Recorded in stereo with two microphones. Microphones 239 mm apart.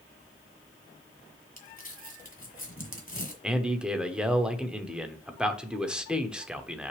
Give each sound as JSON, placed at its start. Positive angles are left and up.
{"t": 1.6, "sound": "crumpling", "side_deg": 35, "distance_m": 1.6}
{"t": 3.4, "sound": "a man speaking", "side_deg": -5, "distance_m": 0.9}